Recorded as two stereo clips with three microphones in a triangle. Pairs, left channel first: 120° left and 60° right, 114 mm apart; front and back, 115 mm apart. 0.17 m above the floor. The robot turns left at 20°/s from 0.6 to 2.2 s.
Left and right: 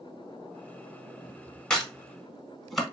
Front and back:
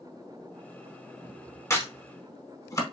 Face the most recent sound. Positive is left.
turn(degrees=35)